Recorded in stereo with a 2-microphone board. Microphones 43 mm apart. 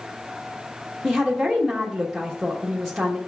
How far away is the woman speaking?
About 1.3 m.